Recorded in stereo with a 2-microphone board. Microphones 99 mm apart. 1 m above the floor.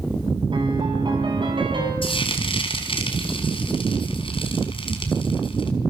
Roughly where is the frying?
Left.